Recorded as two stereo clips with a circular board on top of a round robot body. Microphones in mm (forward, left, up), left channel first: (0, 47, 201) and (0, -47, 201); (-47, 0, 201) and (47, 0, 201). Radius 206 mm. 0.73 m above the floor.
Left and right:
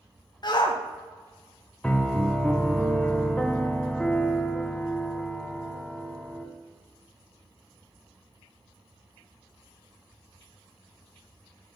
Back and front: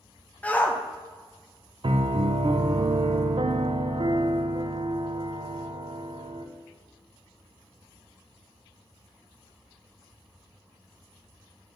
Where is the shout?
110° left, 0.7 m.